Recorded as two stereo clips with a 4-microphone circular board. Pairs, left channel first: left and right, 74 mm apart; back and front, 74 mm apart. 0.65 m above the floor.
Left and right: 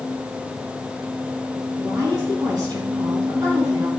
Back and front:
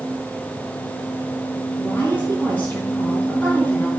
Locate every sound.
1.8 s a woman speaking: 115° right, 6.5 m